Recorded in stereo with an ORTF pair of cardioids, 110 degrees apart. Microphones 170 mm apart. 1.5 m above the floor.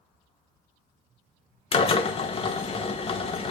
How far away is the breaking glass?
No breaking glass in this recording.